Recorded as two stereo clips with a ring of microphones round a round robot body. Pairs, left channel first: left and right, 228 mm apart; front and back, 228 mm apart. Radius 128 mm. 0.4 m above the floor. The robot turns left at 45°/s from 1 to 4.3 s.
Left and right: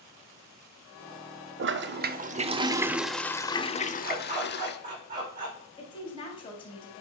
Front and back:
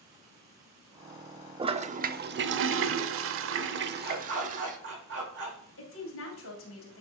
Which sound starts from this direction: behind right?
A dog barking, at 4.0 s.